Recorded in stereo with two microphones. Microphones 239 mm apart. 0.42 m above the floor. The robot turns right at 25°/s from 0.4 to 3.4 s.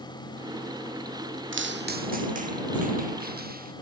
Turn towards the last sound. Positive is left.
turn(degrees=-40)  # may be behind; listen again after turning